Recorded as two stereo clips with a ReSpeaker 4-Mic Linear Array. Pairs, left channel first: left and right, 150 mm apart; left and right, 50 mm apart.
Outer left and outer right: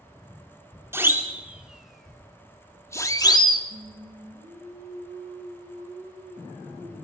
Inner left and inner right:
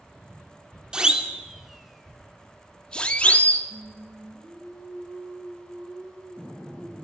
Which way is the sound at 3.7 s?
70° right (ahead or behind).